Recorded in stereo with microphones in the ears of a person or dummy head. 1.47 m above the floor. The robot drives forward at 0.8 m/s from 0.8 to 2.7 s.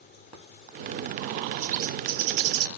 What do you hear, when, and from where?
1.6 s a bird: 35° right (ahead or behind), 1.1 m; by 2.7 s 70° right (ahead or behind), 0.7 m